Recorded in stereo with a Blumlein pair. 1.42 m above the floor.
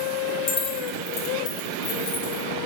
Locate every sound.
0.5 s keys jangling: 20° left, 1.2 m; by 2.4 s 55° left, 2.0 m